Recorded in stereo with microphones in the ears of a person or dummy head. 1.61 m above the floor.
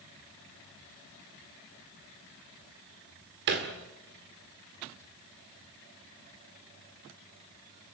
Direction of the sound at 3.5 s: 45° right (ahead or behind).